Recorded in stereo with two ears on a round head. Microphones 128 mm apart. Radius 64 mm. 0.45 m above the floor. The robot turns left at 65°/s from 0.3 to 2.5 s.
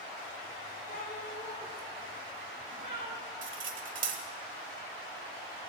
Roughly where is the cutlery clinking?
Right.